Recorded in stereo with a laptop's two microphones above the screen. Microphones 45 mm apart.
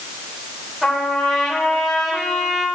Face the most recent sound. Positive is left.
turn(degrees=-5)  # may be behind; listen again after turning